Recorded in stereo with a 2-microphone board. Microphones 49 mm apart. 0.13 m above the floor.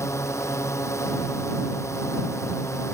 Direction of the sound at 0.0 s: 75° left (ahead or behind).